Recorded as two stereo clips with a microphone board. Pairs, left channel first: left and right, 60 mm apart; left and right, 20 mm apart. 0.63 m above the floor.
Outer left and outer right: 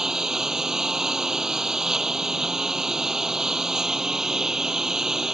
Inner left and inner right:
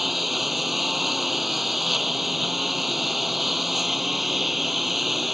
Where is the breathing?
No breathing in this recording.